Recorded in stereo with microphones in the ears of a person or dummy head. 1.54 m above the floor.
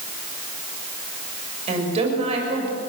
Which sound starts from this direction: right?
A woman speaking, at 1.7 s.